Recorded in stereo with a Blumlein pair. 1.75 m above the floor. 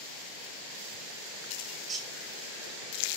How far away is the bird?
About 2.5 m.